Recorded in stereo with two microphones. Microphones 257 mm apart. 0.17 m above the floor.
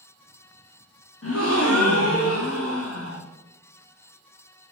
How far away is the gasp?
About 3.5 m.